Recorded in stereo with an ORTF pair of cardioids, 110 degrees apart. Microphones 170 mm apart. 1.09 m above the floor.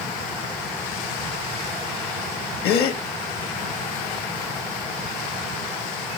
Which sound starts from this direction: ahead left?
A gasp, at 2.6 s.